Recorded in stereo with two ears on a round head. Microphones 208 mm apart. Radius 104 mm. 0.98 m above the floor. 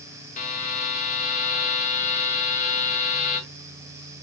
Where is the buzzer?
35° left (ahead or behind), 1.1 m.